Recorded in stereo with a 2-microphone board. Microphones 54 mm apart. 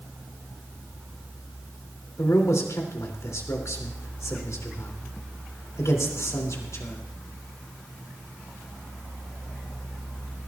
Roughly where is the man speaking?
Left.